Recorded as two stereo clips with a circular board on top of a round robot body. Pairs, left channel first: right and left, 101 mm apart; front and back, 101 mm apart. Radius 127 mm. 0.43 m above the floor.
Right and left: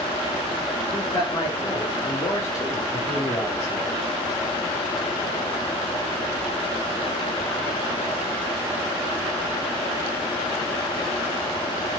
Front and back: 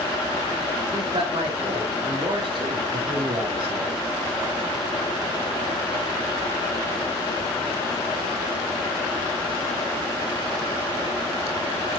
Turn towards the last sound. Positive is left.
turn(degrees=-140)